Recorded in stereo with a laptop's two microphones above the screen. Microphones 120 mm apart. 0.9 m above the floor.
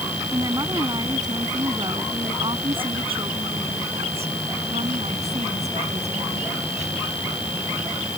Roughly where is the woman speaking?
Right.